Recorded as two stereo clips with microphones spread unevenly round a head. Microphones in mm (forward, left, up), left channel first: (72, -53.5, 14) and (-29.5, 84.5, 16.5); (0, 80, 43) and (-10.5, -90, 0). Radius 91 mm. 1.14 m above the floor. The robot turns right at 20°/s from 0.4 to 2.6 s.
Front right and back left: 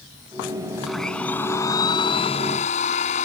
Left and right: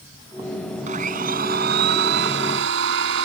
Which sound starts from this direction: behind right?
A blender, at 0.9 s.